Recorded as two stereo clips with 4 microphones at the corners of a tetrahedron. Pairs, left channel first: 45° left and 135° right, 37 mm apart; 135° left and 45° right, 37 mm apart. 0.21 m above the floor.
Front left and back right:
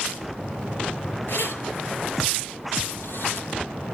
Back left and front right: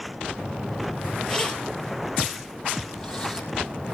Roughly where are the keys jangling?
Ahead left.